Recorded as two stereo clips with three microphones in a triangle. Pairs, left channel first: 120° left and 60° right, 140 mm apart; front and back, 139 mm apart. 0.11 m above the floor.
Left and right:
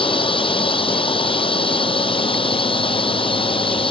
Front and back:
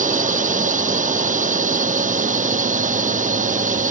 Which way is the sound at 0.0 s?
170° left.